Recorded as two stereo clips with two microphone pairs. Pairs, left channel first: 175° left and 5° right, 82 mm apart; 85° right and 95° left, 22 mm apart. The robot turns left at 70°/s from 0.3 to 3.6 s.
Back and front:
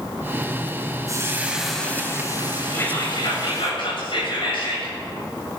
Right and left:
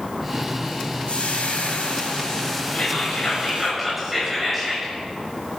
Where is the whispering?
120° right, 7 m; by 4.9 s 175° left, 7 m.